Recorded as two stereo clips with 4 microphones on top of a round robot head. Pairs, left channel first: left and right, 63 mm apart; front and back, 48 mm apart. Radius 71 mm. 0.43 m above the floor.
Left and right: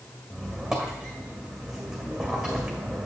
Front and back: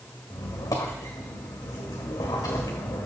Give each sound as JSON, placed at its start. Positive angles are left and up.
{"t": 0.3, "sound": "a squeak", "azimuth_deg": -5, "distance_m": 1.6}